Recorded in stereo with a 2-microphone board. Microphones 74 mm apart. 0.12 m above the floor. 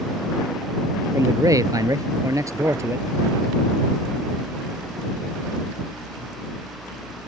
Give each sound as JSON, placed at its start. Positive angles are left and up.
{"t": 1.1, "sound": "a man speaking", "side_deg": -45}